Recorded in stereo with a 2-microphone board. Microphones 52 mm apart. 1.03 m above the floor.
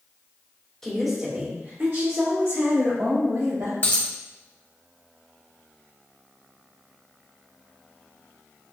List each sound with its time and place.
0.8 s a woman speaking: 10° left (ahead or behind), 1.2 m; by 3.7 s 75° right (ahead or behind), 3 m
3.8 s a dropped coin: 30° left (ahead or behind), 0.9 m